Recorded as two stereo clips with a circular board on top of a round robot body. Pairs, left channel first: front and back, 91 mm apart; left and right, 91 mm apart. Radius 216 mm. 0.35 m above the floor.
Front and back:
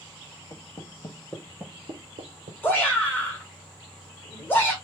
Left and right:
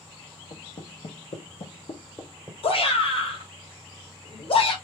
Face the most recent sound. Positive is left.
turn(degrees=70)